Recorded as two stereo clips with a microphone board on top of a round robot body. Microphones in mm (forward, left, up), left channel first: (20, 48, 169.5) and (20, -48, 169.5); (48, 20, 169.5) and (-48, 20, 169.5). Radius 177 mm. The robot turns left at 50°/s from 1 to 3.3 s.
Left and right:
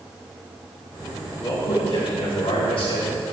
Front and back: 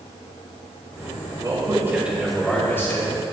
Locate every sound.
1.4 s a man speaking: 135° left, 3.5 m; by 3.1 s 50° left, 3.5 m